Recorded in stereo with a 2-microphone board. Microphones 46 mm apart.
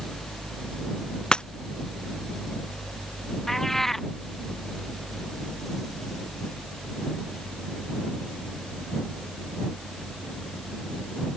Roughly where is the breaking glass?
Centre.